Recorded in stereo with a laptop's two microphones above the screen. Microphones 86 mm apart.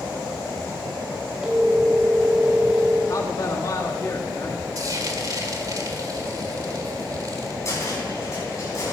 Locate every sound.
1.4 s a phone ringing: 5° right (ahead or behind), 3 m
3.1 s a man speaking: 45° left (ahead or behind), 1.4 m
4.8 s frying: 50° right (ahead or behind), 1.8 m
7.7 s a cupboard door: 40° left (ahead or behind), 5 m